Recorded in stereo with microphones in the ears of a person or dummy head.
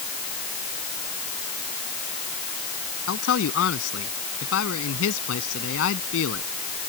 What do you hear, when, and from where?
3.1 s a man speaking: 90° left